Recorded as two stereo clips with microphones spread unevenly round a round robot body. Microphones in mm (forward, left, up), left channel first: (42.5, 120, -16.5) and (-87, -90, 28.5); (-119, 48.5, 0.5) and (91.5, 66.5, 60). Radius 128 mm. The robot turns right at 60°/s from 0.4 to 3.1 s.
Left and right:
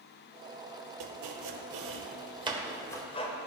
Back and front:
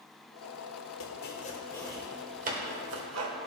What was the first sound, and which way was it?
Chopping, 140° right.